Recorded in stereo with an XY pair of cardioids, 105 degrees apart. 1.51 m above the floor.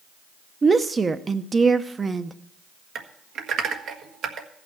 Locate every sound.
0.6 s a woman speaking: 25° right, 0.9 m
3.0 s typing on a keyboard: 65° right, 1.4 m